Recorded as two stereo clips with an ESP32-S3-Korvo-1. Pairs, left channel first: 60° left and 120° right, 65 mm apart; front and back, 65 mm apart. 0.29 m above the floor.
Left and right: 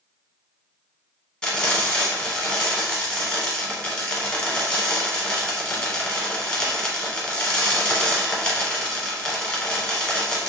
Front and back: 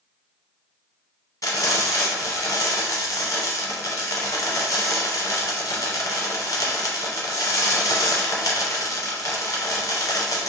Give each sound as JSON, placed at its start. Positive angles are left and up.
{"t": 1.4, "sound": "frying", "azimuth_deg": -20, "distance_m": 1.1}